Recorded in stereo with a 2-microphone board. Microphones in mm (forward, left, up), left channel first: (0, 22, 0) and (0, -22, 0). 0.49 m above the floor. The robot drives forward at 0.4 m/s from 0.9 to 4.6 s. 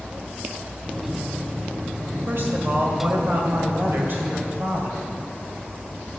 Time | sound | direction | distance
2.3 | a woman speaking | 60° right (ahead or behind) | 2 m